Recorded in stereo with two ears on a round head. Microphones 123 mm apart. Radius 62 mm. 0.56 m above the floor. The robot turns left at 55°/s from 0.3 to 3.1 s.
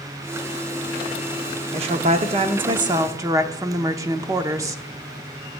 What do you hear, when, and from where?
1.7 s a woman speaking: 70° right, 0.9 m; by 4.8 s 145° right, 0.9 m